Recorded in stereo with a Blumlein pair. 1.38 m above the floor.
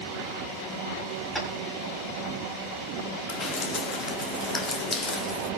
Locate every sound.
1.4 s tapping: 5° right, 6.5 m
3.3 s dripping: 15° left, 2 m